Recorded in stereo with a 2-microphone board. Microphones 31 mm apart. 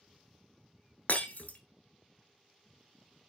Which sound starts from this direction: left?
Breaking glass, at 1.1 s.